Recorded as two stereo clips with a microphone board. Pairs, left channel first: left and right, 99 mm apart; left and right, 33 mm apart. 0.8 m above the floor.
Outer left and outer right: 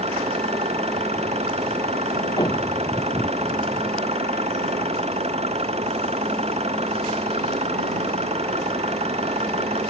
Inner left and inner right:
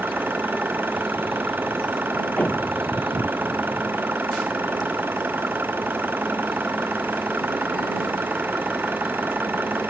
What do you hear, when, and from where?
0.0 s an engine running: 90° right
2.4 s a thud: 40° left (ahead or behind)